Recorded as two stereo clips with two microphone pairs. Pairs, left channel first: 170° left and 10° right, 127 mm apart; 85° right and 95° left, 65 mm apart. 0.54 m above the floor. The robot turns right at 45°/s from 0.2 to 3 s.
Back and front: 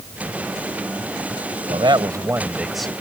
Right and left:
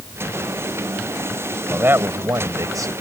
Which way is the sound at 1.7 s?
35° left.